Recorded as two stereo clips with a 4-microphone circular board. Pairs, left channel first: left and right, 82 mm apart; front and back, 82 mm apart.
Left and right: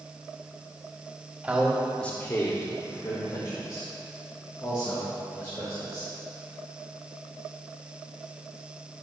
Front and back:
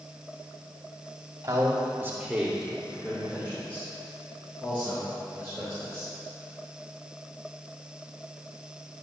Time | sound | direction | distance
1.4 | a man speaking | 155° right | 1.3 m